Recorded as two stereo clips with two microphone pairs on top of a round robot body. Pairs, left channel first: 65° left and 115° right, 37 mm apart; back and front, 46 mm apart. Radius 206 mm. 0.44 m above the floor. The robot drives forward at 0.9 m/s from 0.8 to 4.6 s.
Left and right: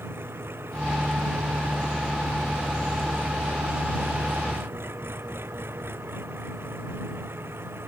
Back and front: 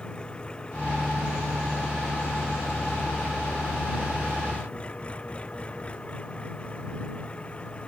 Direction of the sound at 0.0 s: 110° right.